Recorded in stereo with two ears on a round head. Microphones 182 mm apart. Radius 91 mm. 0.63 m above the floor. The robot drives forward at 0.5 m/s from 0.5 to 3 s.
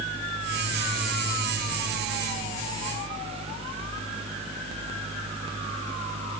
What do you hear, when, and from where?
Only background noise.